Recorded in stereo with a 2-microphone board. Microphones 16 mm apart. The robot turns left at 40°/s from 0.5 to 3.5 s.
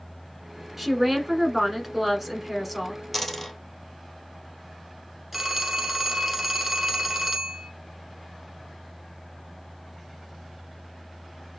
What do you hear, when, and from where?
0.8 s a woman speaking: 20° right (ahead or behind), 1.1 m; by 3.0 s centre (ahead or behind), 1.1 m
3.1 s a dropped coin: 5° left (ahead or behind), 1.5 m; by 3.6 s 20° left (ahead or behind), 1.5 m
5.3 s a phone ringing: 10° right (ahead or behind), 1.1 m